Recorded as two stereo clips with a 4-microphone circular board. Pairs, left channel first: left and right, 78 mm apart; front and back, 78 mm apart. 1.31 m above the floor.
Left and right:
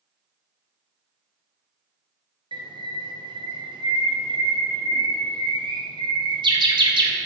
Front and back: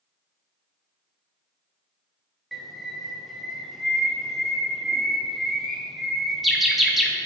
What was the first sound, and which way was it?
A bird, 90° right.